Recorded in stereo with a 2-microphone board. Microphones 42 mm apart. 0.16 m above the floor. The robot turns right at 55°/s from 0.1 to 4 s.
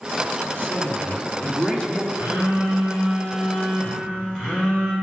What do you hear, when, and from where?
0.6 s a man speaking: 90° left, 1.4 m; by 2.0 s 170° left, 1.4 m
2.1 s a phone buzzing: 125° right, 2.5 m; by 4.9 s 25° right, 2.5 m